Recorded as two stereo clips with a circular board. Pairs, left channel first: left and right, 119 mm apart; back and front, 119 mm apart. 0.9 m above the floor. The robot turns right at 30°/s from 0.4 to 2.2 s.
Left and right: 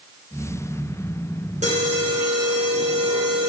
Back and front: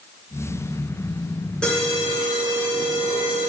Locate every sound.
1.6 s an alarm: 95° right, 7.5 m; by 3.5 s 80° right, 7.5 m